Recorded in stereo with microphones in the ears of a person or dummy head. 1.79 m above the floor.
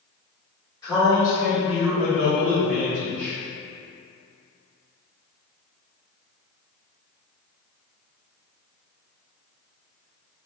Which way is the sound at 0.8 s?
20° left (ahead or behind).